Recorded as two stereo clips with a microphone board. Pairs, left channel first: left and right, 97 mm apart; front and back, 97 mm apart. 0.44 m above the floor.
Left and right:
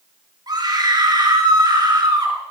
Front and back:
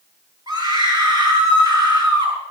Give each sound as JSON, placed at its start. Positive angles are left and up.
{"t": 0.5, "sound": "a scream", "azimuth_deg": -135, "distance_m": 5.5}